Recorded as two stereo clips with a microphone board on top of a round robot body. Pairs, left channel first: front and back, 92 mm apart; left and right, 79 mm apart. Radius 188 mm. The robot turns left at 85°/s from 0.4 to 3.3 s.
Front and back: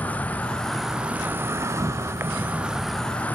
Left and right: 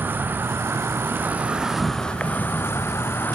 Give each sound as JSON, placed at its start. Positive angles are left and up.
{"t": 0.0, "sound": "an insect", "azimuth_deg": -60, "distance_m": 0.8}